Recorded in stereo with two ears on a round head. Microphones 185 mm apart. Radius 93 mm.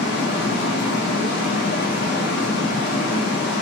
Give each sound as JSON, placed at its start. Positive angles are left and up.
{"t": 0.0, "sound": "running water", "side_deg": 55, "distance_m": 0.8}